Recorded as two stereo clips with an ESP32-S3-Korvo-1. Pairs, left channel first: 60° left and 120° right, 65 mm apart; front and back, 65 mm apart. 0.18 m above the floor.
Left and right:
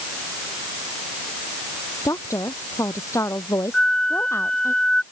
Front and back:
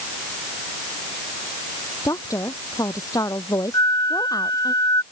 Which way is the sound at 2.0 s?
25° left.